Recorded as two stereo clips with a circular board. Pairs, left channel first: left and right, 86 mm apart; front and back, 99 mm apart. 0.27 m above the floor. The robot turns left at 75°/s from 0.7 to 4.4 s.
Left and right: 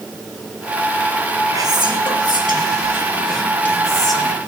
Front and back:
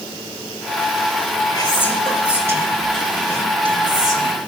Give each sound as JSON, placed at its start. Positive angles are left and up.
{"t": 1.5, "sound": "whispering", "azimuth_deg": -45, "distance_m": 4.5}